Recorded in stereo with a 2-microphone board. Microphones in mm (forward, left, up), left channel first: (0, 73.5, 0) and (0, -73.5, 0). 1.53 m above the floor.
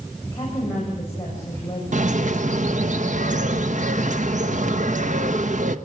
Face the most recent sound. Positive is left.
turn(degrees=-55)  # may be behind; listen again after turning